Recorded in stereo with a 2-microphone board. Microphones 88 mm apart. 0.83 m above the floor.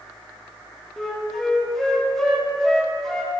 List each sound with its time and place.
1.0 s a flute: 5° left (ahead or behind), 1.0 m